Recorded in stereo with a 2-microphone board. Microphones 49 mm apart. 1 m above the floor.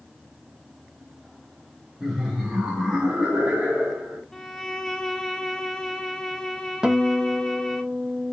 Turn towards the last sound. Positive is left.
turn(degrees=-15)  # may be behind; listen again after turning